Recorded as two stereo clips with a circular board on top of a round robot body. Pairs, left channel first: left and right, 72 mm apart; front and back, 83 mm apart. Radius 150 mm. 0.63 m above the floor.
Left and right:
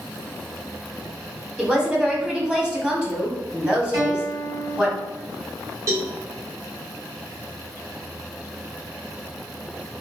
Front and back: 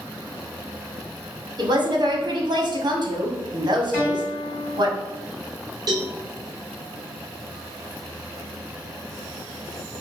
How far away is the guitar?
About 2 m.